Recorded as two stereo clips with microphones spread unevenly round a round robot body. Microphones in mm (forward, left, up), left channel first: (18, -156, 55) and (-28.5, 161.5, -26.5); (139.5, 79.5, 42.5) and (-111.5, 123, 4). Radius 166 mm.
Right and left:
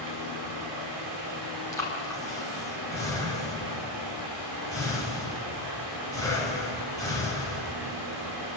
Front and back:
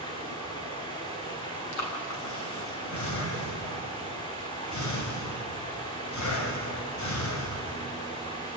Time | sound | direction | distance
0.0 | running water | 60° left | 5.5 m
1.7 | breathing | straight ahead | 3.5 m